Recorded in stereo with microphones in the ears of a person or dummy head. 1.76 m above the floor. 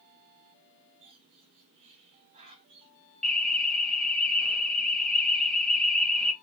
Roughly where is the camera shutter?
I don't hear a camera shutter.